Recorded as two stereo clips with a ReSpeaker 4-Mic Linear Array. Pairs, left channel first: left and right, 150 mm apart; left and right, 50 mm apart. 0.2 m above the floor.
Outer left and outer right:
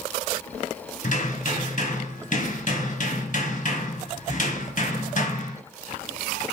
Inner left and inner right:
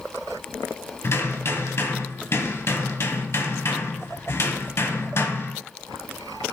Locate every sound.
1.0 s hammering: 60° left (ahead or behind), 2 m